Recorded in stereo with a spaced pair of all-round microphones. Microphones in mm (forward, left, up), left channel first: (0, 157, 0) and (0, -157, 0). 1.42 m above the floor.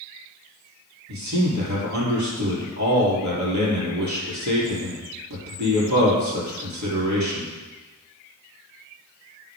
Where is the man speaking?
65° right (ahead or behind), 3 m.